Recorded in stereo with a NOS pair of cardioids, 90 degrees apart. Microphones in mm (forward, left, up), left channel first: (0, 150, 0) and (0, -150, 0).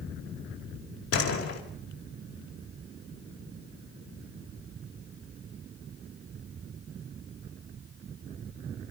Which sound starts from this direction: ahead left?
A door slam, at 1.1 s.